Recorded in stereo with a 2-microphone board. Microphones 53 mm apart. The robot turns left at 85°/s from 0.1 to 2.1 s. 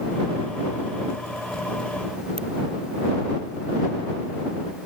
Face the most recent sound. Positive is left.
turn(degrees=20)  # may be behind; listen again after turning